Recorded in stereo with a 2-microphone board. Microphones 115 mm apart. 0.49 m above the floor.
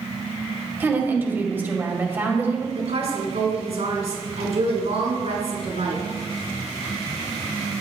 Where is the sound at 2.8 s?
65° right (ahead or behind), 5 m.